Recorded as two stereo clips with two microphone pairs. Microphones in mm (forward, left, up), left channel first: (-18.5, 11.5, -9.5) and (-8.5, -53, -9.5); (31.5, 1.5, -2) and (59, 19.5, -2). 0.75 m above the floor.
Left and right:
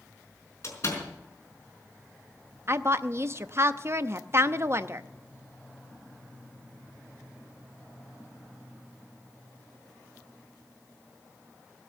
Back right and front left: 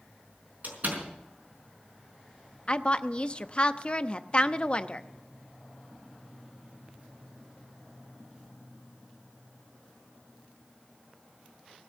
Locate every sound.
0.6 s a door slam: 55° left, 5 m
2.7 s a woman speaking: 100° right, 0.6 m